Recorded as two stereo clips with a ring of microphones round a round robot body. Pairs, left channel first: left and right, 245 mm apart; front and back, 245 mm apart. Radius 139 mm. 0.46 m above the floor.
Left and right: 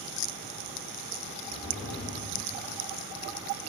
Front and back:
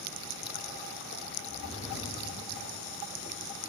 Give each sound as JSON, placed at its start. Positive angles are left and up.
{"t": 1.4, "sound": "a whoosh", "azimuth_deg": 15, "distance_m": 1.5}